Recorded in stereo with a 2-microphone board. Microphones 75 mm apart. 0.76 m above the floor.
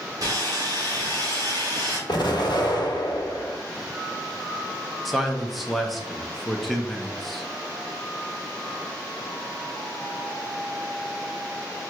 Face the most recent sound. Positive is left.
turn(degrees=0)  # may be behind; listen again after turning